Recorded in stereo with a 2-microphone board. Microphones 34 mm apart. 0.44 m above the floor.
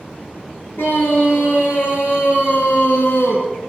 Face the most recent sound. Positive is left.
turn(degrees=80)